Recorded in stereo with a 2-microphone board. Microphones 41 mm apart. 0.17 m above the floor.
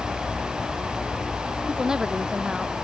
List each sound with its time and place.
1.7 s a woman speaking: 20° right (ahead or behind)